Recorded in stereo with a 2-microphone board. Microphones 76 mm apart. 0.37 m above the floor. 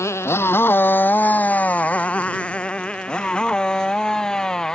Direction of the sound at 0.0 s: 40° left (ahead or behind).